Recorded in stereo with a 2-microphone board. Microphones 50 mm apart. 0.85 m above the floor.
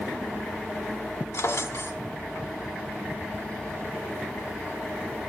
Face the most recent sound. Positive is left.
turn(degrees=80)